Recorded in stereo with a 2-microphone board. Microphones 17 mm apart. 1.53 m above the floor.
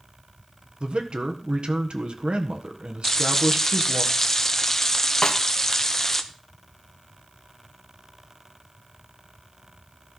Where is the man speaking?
80° right, 1.6 m.